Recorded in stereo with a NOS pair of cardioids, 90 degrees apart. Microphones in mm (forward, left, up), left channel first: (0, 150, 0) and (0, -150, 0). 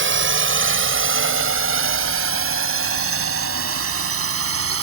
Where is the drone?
40° right; by 4.8 s 45° right.